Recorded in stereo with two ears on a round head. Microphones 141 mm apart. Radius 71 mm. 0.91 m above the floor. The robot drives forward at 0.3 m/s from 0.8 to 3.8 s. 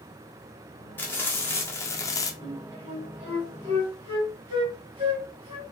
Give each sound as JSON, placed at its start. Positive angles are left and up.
{"t": 1.0, "sound": "frying", "side_deg": 10, "distance_m": 0.9}
{"t": 2.4, "sound": "a flute", "side_deg": -45, "distance_m": 1.2}